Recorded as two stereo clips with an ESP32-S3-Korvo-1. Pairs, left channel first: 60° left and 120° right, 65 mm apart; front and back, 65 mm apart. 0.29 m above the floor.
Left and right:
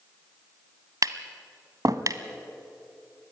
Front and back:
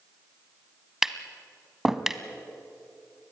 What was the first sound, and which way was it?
Tapping, 95° right.